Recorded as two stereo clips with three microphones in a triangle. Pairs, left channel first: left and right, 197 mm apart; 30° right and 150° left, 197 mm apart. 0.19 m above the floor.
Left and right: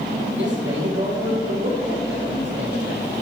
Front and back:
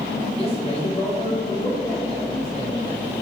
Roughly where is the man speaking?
Right.